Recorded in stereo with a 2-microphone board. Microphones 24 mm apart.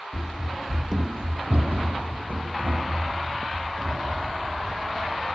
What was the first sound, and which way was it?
Running footsteps, 45° left (ahead or behind).